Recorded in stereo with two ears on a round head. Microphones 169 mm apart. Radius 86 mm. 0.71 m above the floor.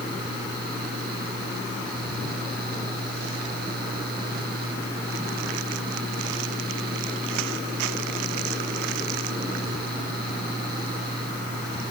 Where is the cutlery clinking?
No cutlery clinking in this recording.